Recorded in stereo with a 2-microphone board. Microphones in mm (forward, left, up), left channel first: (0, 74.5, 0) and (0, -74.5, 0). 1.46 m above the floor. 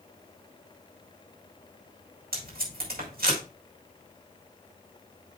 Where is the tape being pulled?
85° right, 5.5 m.